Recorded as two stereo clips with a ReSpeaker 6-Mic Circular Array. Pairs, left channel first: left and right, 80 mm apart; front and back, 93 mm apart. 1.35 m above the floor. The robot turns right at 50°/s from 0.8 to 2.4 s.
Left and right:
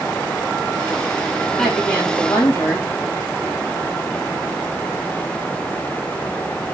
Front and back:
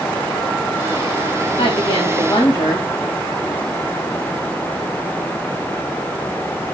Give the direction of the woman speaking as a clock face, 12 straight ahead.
12 o'clock.